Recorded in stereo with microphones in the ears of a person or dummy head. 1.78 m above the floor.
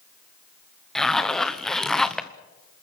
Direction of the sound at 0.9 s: Centre (ahead or behind).